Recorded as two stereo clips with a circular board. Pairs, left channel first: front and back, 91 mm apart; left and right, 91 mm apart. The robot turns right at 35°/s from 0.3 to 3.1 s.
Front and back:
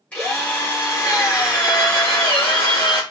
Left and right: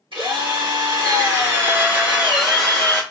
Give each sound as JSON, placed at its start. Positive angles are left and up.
{"t": 0.1, "sound": "a drill", "azimuth_deg": -75, "distance_m": 3.0}